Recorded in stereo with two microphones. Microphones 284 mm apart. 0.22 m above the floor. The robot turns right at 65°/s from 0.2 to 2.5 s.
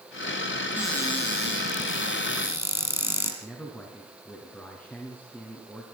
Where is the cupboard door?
5° right, 5 m; by 3.3 s 105° left, 5 m.